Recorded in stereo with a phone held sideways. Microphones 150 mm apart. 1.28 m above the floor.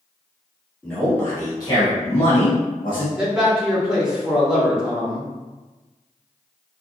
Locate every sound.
0.8 s a man speaking: 5° left (ahead or behind), 1.4 m; by 3.1 s 85° left, 1.2 m
3.2 s a man speaking: 5° right (ahead or behind), 1.3 m